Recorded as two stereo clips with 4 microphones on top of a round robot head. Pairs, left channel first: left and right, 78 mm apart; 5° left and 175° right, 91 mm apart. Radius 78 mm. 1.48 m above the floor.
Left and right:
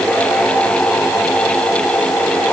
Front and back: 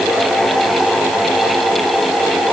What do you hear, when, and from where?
Only background noise.